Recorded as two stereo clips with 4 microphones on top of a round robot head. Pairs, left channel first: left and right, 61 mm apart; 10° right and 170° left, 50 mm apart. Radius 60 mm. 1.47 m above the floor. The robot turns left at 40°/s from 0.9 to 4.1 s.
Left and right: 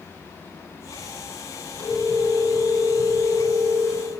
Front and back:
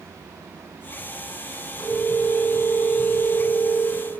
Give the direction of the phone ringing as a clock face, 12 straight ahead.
11 o'clock.